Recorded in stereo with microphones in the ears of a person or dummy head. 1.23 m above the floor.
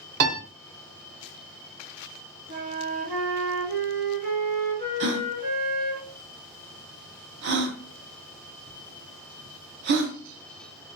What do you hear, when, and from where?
0.2 s a piano: 40° right (ahead or behind), 0.6 m
2.5 s a flute: 40° right (ahead or behind), 1.1 m
5.0 s a gasp: 60° right (ahead or behind), 0.7 m